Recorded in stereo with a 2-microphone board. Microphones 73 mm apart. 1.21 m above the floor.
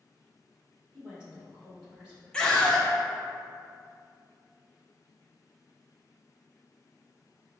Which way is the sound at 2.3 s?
10° left (ahead or behind).